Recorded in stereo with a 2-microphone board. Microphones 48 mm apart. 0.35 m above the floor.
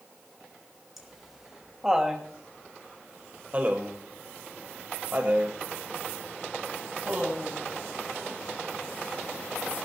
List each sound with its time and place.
1.0 s laughter: 5° right (ahead or behind), 2 m; by 7.6 s 35° right (ahead or behind), 2.5 m